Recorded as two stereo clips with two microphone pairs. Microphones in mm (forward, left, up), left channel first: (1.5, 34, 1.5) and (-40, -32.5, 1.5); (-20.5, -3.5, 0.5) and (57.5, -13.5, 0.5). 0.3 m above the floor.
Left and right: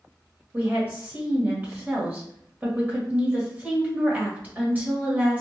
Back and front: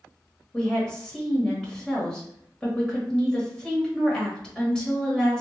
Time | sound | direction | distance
0.5 | a woman speaking | 115° right | 1.3 m